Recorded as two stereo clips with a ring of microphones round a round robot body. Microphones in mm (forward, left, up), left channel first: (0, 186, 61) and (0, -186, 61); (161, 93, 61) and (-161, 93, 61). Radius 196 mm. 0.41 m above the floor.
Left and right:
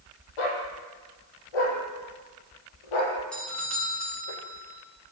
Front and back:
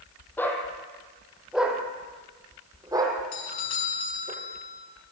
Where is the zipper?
No zipper in this recording.